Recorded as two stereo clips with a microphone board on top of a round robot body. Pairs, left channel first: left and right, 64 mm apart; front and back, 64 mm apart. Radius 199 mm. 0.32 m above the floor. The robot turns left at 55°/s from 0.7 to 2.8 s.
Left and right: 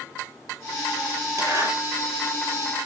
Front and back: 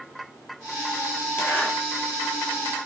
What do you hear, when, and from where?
1.4 s a zipper: 50° right, 6 m; by 1.7 s 70° right, 6 m